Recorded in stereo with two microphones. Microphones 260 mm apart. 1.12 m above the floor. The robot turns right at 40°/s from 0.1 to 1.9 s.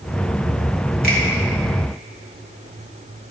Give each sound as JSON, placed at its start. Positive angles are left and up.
{"t": 1.0, "sound": "a finger snap", "side_deg": 35, "distance_m": 2.0}